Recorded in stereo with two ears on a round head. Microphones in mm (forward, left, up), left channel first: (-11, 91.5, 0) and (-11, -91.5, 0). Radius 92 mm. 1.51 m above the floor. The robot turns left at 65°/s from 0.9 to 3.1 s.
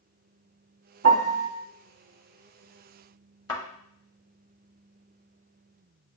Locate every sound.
1.0 s a piano: 75° right (ahead or behind), 0.7 m; by 1.5 s 65° right (ahead or behind), 0.7 m
3.5 s a thud: 20° left (ahead or behind), 1.6 m